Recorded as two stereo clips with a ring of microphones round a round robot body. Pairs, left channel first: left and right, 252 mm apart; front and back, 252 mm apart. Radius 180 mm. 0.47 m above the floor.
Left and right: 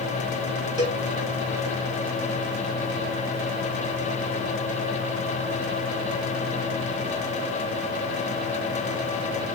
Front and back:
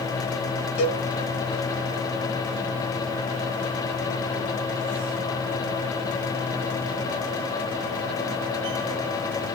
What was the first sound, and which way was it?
A cowbell, 15° right.